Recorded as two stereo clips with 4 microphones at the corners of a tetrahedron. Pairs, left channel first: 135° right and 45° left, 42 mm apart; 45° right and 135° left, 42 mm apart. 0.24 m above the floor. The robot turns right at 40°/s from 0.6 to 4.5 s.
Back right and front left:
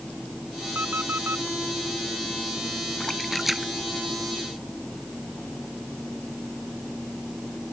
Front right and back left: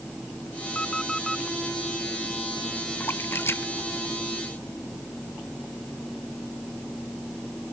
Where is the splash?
60° right; by 5.1 s straight ahead.